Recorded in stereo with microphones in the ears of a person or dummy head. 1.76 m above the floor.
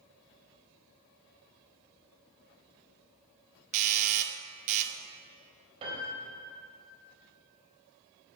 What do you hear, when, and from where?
3.7 s a doorbell: 40° right (ahead or behind), 0.8 m
5.8 s a piano: 30° right (ahead or behind), 3.5 m